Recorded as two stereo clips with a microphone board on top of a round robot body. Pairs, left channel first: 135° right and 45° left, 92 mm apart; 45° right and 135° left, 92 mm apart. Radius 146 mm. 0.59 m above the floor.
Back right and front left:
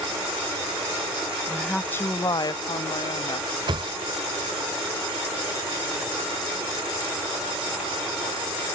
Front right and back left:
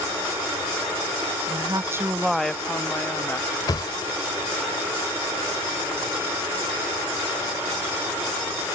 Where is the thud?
5° left.